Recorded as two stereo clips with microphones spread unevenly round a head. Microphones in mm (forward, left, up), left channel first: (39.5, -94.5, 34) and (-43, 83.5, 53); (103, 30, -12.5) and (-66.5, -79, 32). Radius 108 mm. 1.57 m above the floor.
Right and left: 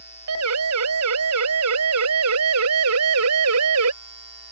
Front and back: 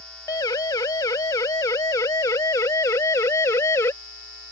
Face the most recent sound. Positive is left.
turn(degrees=115)